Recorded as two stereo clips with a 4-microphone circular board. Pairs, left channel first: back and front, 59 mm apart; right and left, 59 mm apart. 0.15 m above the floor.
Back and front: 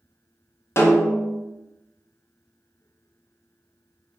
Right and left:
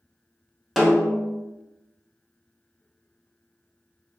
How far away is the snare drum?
About 0.7 m.